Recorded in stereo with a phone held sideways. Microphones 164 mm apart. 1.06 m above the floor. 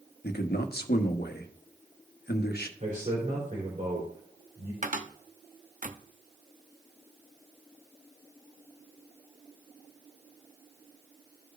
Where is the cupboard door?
50° right (ahead or behind), 0.6 m.